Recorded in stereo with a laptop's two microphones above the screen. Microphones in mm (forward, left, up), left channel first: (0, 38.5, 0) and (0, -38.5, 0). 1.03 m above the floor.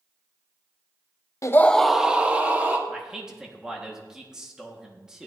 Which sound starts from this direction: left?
A scream, at 1.4 s.